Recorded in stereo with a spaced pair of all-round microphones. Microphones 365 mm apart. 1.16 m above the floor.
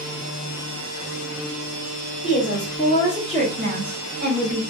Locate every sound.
2.2 s a woman speaking: 25° left (ahead or behind), 0.8 m; by 4.6 s 55° right (ahead or behind), 1.1 m